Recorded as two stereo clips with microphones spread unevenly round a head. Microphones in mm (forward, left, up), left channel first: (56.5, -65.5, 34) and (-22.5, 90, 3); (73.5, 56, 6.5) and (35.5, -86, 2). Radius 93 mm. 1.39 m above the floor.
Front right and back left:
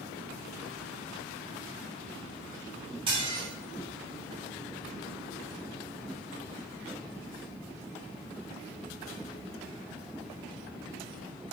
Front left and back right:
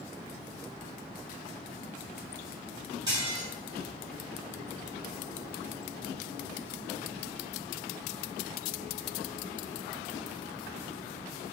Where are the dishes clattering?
Straight behind, 4 m.